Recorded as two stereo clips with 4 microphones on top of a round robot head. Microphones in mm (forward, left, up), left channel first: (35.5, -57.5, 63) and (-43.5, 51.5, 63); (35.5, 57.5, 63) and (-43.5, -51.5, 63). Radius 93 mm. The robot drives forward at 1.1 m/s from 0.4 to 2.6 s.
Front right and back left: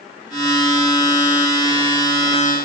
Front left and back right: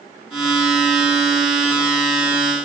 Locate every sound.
Only background noise.